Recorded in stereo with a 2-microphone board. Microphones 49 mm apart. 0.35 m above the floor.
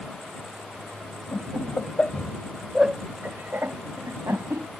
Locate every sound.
1.3 s laughter: 45° left (ahead or behind); by 4.7 s 70° right (ahead or behind)